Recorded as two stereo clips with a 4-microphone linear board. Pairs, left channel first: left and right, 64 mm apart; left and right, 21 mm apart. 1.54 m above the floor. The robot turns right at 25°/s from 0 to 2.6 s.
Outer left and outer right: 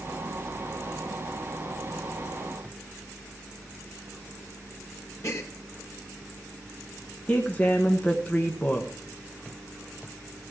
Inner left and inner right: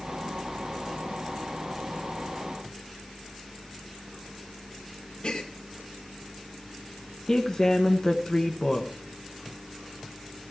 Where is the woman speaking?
25° left (ahead or behind), 1.2 m.